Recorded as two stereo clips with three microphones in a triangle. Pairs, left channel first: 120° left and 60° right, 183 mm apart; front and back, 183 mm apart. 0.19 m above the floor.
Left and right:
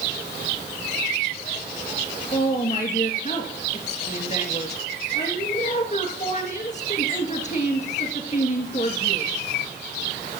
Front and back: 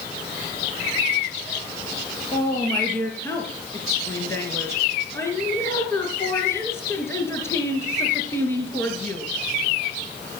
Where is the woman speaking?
75° left, 3 m.